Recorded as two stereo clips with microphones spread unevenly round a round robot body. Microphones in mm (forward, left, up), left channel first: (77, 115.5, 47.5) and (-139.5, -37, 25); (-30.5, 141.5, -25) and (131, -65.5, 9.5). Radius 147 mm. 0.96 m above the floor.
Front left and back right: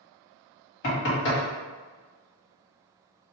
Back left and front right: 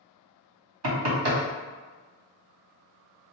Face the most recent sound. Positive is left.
turn(degrees=-20)